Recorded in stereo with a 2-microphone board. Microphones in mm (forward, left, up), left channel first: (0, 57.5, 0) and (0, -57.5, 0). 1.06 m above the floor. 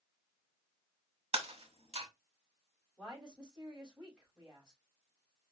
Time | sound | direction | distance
1.3 | breaking glass | 65° right (ahead or behind) | 1.0 m
3.0 | a woman speaking | 5° right (ahead or behind) | 4 m